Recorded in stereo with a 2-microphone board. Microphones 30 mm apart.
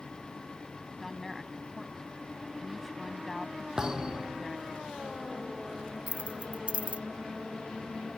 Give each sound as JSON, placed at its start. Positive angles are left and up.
{"t": 1.0, "sound": "a woman speaking", "side_deg": 10}
{"t": 3.8, "sound": "a thud", "side_deg": -25}
{"t": 6.1, "sound": "keys jangling", "side_deg": -45}